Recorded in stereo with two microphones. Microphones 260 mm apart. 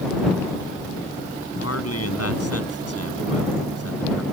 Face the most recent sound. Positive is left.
turn(degrees=65)  # may be behind; listen again after turning